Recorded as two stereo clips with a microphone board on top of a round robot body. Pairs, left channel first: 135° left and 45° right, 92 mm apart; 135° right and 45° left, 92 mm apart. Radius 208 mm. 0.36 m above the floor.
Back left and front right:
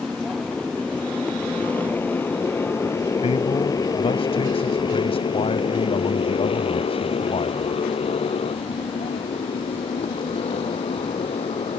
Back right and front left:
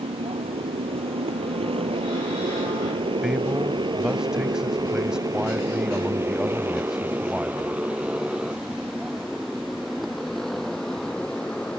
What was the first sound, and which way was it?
A motorcycle, 45° left.